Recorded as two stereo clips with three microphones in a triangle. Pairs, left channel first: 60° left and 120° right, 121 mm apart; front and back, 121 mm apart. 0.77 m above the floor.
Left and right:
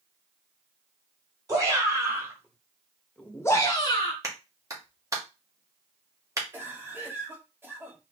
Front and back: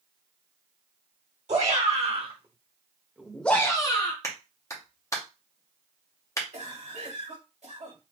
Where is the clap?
60° right, 1.0 m.